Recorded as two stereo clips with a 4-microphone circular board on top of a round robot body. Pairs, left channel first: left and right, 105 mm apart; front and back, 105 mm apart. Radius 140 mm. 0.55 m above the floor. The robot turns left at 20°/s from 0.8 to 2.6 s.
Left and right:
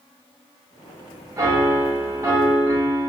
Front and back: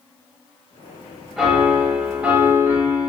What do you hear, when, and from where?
1.4 s a piano: 100° right, 1.1 m; by 3.1 s 125° right, 1.1 m